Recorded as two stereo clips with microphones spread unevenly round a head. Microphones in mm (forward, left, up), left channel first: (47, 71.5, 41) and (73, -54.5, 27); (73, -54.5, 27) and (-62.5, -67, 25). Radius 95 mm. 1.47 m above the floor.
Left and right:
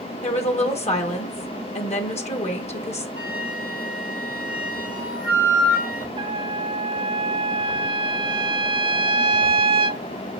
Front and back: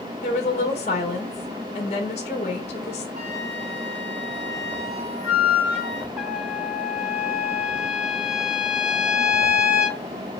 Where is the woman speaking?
65° left, 2 m.